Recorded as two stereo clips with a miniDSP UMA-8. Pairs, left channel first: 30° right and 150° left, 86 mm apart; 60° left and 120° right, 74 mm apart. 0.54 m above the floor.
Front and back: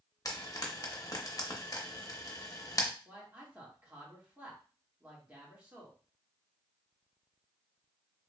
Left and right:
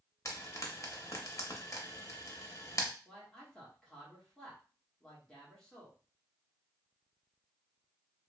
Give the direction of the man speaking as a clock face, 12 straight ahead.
8 o'clock.